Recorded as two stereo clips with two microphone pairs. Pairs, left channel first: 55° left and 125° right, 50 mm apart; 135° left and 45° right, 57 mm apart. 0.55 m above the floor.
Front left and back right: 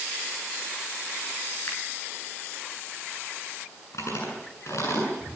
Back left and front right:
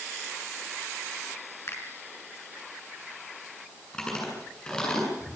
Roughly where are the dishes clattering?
I don't hear dishes clattering.